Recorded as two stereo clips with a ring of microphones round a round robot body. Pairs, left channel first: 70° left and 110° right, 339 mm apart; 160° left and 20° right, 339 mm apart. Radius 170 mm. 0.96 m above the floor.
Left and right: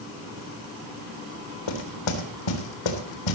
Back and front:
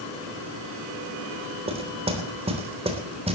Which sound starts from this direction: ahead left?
Knocking, at 1.7 s.